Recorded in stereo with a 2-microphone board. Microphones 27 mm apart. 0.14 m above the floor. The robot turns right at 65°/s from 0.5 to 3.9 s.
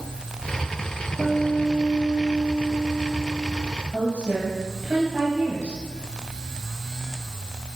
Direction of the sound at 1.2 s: 45° right.